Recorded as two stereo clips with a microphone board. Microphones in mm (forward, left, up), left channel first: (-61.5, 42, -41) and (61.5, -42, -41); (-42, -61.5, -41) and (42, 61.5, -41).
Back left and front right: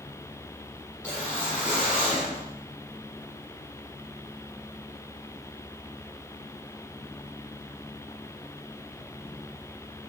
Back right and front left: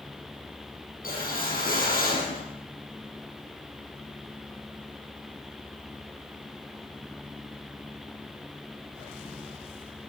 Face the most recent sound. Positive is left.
turn(degrees=-135)